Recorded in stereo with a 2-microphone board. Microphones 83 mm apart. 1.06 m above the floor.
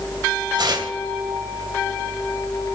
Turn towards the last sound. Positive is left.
turn(degrees=-60)  # may be behind; listen again after turning